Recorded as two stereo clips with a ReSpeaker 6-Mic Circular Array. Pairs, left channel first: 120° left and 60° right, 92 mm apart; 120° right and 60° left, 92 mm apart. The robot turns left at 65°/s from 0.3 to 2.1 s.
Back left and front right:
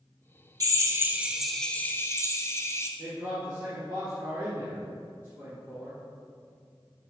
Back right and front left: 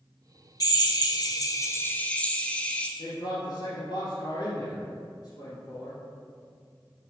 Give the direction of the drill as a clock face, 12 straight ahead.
3 o'clock.